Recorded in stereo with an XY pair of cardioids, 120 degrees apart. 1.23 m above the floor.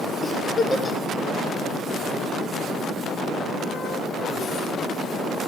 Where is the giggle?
30° left, 0.8 m.